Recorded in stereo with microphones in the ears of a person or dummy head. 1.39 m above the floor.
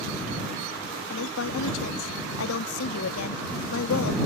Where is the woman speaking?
75° left (ahead or behind).